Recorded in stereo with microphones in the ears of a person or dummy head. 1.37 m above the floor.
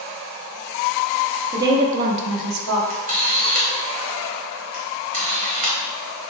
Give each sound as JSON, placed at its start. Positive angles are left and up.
{"t": 1.5, "sound": "a woman speaking", "side_deg": -20, "distance_m": 0.8}
{"t": 2.9, "sound": "a camera shutter", "side_deg": -30, "distance_m": 1.0}